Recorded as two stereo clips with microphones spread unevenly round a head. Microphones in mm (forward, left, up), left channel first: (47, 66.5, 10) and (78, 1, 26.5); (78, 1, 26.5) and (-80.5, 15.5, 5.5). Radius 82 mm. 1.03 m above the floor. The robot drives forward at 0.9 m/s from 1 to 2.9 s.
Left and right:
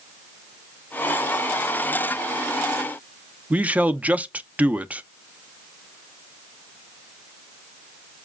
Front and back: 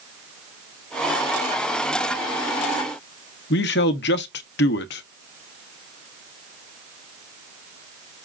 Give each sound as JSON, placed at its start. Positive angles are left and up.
{"t": 3.5, "sound": "a man speaking", "azimuth_deg": 10, "distance_m": 0.8}